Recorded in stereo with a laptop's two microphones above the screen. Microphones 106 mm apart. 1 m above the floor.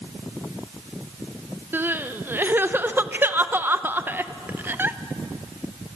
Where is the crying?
20° right (ahead or behind), 0.6 m.